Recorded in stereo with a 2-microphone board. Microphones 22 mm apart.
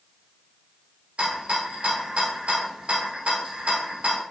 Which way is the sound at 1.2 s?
75° right (ahead or behind).